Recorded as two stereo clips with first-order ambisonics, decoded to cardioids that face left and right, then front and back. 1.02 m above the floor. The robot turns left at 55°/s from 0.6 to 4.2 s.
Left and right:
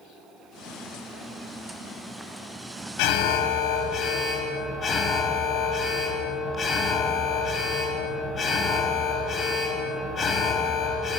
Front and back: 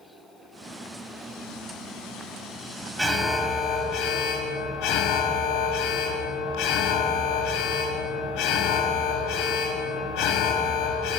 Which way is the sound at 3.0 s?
90° left.